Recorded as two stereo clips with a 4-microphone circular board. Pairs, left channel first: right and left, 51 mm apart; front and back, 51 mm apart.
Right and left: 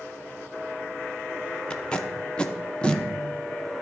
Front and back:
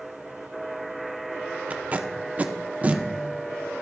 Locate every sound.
1.7 s tape being pulled: 145° right, 0.5 m